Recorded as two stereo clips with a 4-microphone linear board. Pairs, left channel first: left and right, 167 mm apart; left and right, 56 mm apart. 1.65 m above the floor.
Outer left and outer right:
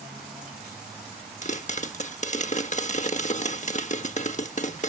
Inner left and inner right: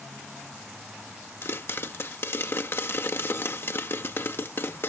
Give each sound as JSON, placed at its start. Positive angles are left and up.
{"t": 1.4, "sound": "a pop", "side_deg": 45}